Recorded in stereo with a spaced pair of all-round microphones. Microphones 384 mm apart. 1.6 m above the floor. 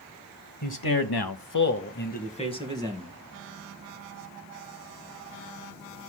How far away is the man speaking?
About 1.2 m.